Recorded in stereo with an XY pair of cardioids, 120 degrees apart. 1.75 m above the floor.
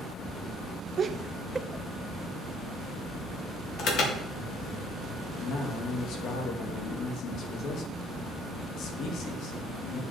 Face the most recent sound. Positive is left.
turn(degrees=65)